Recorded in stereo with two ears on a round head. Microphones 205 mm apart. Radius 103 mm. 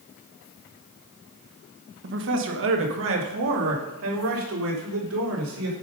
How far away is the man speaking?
About 1.1 m.